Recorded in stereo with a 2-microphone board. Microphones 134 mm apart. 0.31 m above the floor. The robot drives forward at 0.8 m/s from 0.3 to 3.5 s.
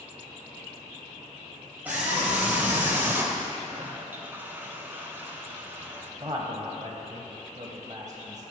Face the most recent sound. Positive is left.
turn(degrees=-30)  # may be behind; listen again after turning